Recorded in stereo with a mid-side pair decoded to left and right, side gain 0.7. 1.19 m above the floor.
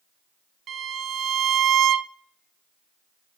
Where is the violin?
40° right, 0.5 m.